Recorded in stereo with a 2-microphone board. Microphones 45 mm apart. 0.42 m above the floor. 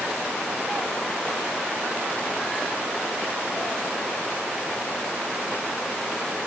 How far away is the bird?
I don't hear a bird.